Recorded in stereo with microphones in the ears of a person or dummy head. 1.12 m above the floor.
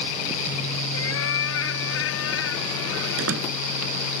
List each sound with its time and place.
0.9 s a cat meowing: 80° left
3.2 s a door slam: 80° right